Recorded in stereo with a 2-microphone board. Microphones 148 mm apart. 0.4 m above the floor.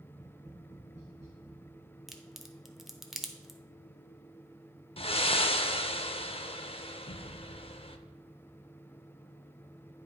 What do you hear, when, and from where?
0.1 s tapping: 50° right (ahead or behind), 3.5 m
2.1 s a crack: centre (ahead or behind), 0.7 m
5.0 s breathing: 40° left (ahead or behind), 0.5 m